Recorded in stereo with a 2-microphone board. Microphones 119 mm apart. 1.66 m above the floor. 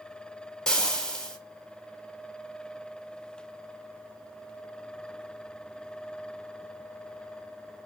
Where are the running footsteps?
I don't hear running footsteps.